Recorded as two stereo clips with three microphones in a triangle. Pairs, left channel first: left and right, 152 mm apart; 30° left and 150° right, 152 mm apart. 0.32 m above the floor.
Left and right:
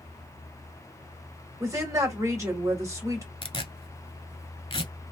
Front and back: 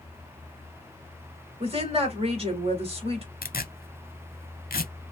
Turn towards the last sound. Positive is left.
turn(degrees=40)